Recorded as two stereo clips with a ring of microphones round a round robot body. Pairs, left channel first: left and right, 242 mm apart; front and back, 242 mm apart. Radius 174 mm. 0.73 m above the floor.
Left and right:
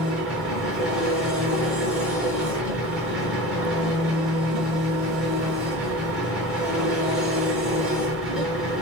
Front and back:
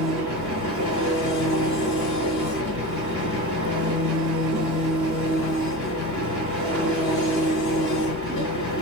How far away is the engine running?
About 4 m.